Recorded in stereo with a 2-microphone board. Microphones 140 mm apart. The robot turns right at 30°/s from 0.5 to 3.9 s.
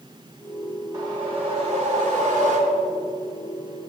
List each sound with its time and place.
0.9 s a whoosh: 145° right, 2 m; by 2.8 s 90° right, 2 m